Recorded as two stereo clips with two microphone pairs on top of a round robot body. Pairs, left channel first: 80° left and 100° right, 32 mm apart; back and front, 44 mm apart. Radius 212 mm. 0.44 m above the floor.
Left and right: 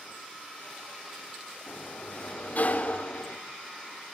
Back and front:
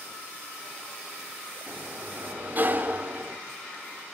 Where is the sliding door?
45° left, 2 m.